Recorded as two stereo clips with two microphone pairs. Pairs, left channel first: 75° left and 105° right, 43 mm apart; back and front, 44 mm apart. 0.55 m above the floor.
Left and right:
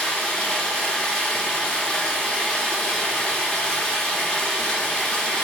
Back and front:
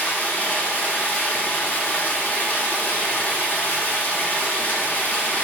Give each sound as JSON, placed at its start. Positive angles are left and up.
{"t": 0.0, "sound": "running water", "azimuth_deg": 145, "distance_m": 0.8}